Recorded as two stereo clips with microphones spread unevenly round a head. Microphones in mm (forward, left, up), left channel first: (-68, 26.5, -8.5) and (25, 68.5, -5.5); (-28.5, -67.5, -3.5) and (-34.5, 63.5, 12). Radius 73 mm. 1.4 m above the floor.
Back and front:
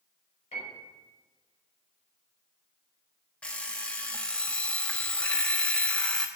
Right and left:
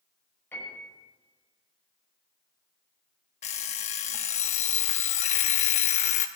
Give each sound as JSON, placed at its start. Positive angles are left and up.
{"t": 0.5, "sound": "a piano", "azimuth_deg": -165, "distance_m": 5.0}
{"t": 3.4, "sound": "an alarm clock", "azimuth_deg": -80, "distance_m": 0.7}